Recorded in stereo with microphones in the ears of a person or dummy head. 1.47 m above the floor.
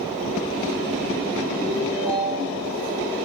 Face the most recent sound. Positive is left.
turn(degrees=-20)  # may be behind; listen again after turning